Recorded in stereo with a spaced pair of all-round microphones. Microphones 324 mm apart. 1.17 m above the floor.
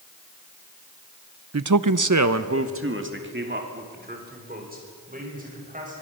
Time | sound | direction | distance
1.5 | a man speaking | 50° right (ahead or behind) | 0.7 m